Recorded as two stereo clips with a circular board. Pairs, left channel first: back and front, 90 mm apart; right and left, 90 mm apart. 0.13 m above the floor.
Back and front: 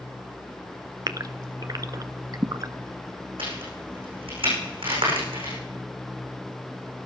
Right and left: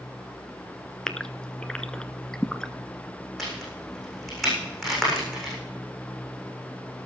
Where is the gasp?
10° right, 0.5 m.